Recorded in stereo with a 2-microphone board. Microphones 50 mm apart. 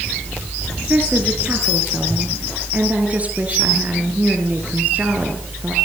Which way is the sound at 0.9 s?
30° right (ahead or behind).